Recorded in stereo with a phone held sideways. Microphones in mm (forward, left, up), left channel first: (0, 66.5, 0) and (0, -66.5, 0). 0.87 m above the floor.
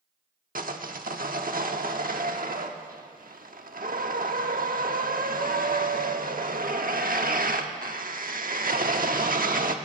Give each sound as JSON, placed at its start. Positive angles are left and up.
{"t": 0.6, "sound": "sawing", "side_deg": -85, "distance_m": 1.1}